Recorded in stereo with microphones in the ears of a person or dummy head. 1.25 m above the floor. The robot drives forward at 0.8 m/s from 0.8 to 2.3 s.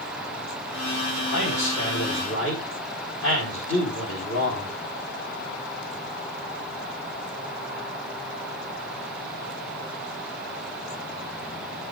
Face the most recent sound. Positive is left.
turn(degrees=80)